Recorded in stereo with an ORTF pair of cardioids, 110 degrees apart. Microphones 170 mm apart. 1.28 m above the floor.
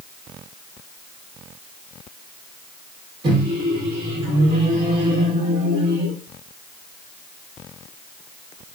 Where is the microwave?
30° right, 1.2 m.